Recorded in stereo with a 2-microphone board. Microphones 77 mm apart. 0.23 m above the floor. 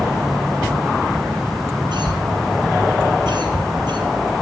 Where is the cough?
75° right (ahead or behind), 5 m.